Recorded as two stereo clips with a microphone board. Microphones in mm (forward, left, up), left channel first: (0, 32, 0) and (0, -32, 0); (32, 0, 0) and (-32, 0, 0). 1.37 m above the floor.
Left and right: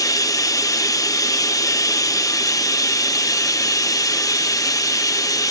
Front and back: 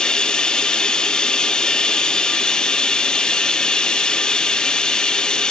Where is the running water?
75° left, 0.8 m.